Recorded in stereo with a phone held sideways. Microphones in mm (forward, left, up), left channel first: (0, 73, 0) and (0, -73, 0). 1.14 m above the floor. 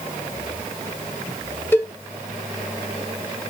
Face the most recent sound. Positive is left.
turn(degrees=15)  # may be behind; listen again after turning